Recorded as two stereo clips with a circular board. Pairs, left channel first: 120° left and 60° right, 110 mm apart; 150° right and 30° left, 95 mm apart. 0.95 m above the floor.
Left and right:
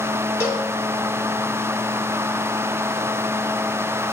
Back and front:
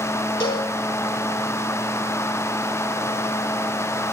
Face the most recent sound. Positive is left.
turn(degrees=-175)